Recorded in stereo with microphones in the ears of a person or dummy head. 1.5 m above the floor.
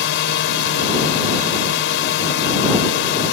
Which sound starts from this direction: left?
A drone, at 0.0 s.